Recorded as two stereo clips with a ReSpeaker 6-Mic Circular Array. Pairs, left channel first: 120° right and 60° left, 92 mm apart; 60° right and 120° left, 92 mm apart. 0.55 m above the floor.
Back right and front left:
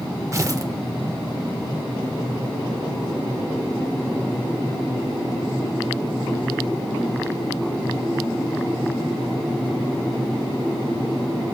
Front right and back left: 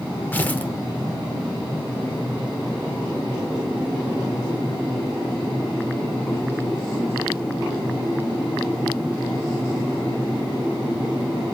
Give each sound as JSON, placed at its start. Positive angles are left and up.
{"t": 0.3, "sound": "tearing paper", "azimuth_deg": 10, "distance_m": 0.8}